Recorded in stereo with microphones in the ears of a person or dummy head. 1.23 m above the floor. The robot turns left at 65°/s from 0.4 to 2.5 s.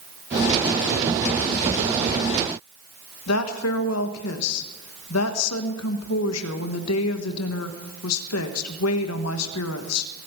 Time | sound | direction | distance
3.3 | a woman speaking | 80° left | 1.3 m